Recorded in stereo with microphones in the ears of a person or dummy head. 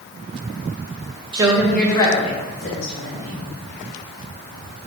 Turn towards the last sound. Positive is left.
turn(degrees=60)  # may be behind; listen again after turning